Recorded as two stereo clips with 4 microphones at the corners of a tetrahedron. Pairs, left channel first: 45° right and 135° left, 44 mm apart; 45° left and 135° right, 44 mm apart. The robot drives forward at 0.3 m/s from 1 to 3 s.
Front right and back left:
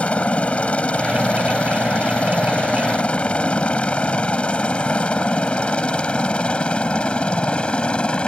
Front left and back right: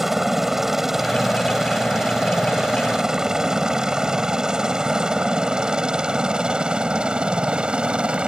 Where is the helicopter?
60° right; by 8.3 s 90° right.